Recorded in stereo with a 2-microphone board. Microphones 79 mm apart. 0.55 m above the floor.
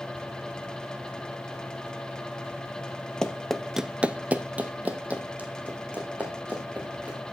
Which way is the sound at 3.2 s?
10° left (ahead or behind).